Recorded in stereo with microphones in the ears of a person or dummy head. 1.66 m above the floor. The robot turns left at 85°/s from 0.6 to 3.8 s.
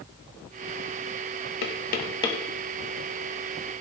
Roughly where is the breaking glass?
I don't hear breaking glass.